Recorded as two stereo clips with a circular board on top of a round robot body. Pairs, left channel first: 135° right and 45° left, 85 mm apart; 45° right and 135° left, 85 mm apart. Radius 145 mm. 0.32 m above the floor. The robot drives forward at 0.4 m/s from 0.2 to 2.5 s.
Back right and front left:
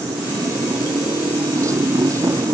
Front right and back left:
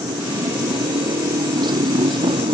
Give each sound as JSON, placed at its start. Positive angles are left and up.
{"t": 0.0, "sound": "a motorcycle", "azimuth_deg": 95}